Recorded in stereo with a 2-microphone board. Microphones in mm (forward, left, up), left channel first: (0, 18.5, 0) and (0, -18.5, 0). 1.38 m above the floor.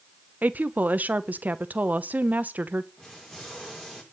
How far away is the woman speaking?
About 1.0 m.